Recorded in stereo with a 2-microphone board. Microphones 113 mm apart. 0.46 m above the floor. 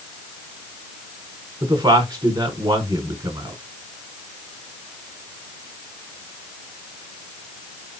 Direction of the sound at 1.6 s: 35° right (ahead or behind).